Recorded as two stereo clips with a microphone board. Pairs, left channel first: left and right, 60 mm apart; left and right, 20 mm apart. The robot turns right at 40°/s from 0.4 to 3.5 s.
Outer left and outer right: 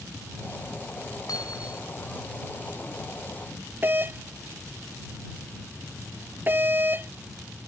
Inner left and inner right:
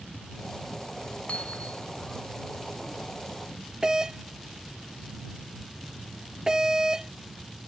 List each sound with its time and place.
1.3 s hammering: 80° left; by 1.9 s 75° left (ahead or behind)
3.8 s a doorbell: 35° right (ahead or behind)